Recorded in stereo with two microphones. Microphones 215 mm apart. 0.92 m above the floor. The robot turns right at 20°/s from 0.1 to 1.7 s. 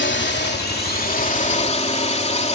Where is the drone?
115° left; by 2.6 s 145° left.